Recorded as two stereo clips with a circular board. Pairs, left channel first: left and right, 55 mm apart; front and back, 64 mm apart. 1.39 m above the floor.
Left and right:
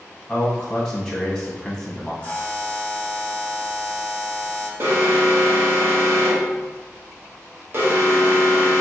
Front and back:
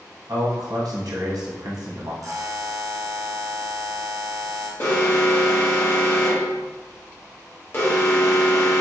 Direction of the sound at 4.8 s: 45° right.